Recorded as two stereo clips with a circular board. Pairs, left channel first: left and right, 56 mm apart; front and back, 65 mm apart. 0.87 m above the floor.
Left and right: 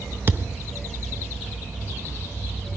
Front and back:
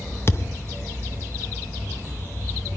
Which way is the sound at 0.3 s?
45° right.